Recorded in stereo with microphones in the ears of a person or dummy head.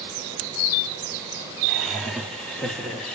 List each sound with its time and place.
1.7 s laughter: 5° right (ahead or behind), 0.6 m; by 3.2 s centre (ahead or behind), 0.8 m